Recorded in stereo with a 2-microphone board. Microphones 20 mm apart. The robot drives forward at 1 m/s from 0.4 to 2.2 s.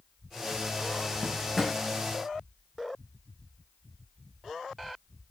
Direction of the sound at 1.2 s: 5° left (ahead or behind).